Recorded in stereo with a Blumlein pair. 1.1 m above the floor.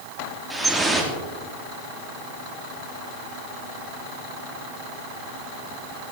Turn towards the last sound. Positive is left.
turn(degrees=-10)